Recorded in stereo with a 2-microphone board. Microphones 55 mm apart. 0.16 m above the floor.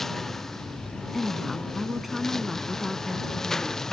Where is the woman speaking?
Centre (ahead or behind).